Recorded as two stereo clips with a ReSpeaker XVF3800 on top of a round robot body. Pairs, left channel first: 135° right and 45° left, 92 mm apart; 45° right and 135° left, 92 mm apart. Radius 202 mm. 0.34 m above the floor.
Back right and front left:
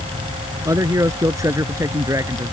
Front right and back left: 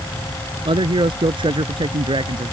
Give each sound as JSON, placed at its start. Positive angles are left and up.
{"t": 0.7, "sound": "a man speaking", "azimuth_deg": 100}